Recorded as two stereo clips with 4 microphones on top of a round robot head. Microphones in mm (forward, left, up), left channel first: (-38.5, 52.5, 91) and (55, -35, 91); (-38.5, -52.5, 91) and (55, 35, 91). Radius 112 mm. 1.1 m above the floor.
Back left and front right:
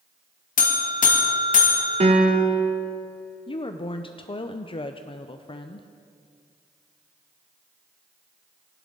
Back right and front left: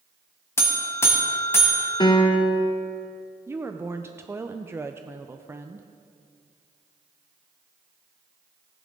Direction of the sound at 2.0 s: 80° right.